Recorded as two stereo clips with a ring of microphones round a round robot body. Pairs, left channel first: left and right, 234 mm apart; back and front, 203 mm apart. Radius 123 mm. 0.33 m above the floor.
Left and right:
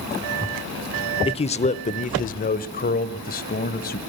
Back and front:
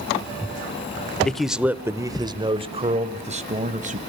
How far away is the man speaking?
About 0.9 m.